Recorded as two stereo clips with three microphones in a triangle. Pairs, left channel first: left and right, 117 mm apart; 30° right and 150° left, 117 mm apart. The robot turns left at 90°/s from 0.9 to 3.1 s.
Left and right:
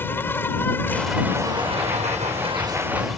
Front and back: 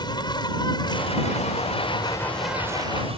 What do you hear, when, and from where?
0.0 s an insect: 20° left; by 3.2 s straight behind